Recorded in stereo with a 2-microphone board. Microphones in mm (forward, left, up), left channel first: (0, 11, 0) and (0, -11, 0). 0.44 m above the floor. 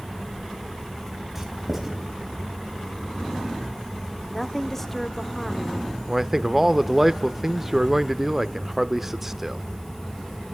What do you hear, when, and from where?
1.4 s writing: 10° right (ahead or behind), 3.5 m
4.3 s a woman speaking: 15° left (ahead or behind), 1.0 m
6.1 s a man speaking: 15° right (ahead or behind), 0.8 m